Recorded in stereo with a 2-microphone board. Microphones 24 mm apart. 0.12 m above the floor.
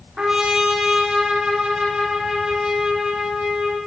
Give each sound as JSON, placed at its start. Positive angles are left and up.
{"t": 0.2, "sound": "a trumpet", "side_deg": -35, "distance_m": 7.0}